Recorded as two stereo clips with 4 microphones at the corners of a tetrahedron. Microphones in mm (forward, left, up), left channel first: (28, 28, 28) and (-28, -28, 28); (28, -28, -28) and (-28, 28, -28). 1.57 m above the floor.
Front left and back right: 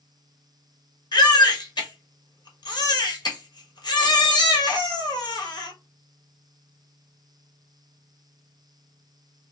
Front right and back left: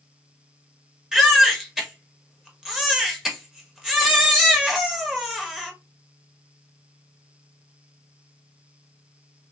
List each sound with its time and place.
1.1 s a baby crying: 55° left, 1.4 m